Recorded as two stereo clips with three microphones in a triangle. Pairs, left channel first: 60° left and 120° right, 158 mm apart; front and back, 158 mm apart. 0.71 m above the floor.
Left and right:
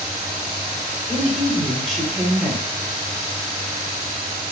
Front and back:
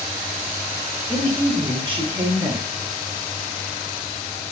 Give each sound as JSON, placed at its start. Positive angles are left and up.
{"t": 1.1, "sound": "a woman speaking", "azimuth_deg": 145, "distance_m": 1.1}